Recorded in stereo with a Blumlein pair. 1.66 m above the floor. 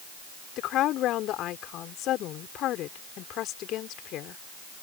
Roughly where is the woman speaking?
Ahead left.